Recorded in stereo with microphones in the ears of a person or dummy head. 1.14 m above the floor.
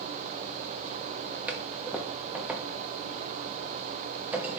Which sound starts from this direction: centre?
A toilet flushing, at 1.5 s.